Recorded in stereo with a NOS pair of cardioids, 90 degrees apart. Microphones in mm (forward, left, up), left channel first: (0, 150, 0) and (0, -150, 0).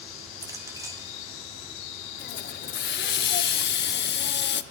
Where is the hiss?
40° left, 0.5 m.